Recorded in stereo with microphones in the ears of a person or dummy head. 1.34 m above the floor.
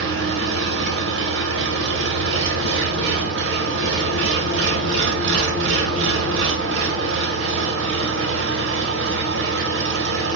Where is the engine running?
65° right (ahead or behind), 0.9 m.